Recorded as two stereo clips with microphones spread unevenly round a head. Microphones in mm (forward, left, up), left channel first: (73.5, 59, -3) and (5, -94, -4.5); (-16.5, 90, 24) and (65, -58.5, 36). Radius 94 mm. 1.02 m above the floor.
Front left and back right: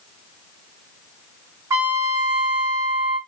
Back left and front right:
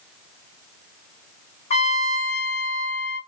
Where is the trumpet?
170° left, 0.7 m.